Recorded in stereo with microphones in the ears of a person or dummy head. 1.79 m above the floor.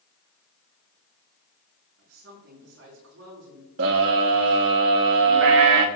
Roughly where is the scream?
Right.